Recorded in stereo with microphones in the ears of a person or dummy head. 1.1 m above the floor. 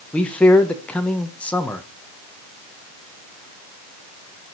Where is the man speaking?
10° left (ahead or behind), 0.9 m.